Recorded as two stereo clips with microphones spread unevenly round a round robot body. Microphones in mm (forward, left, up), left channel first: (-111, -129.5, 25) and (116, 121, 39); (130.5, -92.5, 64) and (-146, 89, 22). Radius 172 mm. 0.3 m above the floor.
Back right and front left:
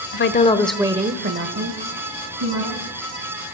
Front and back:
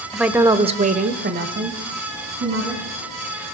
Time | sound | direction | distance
0.1 | a woman speaking | 135° right | 1.0 m